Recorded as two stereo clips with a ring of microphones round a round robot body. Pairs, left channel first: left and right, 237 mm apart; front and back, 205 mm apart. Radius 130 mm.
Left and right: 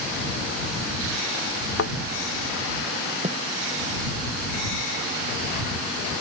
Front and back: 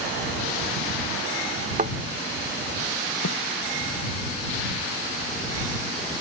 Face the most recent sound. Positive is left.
turn(degrees=-25)